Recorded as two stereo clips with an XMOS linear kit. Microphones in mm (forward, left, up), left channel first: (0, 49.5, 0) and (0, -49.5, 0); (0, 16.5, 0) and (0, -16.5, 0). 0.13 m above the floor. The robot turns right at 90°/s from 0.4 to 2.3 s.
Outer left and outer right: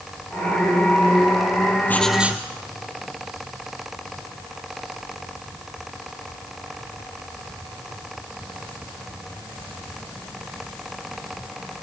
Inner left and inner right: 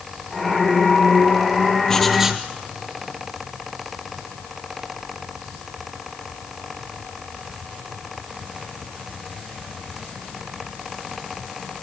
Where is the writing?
160° left, 1.9 m; by 2.5 s 160° right, 1.9 m.